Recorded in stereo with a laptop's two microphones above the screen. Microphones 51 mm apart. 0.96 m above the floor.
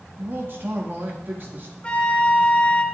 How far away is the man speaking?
About 1.8 m.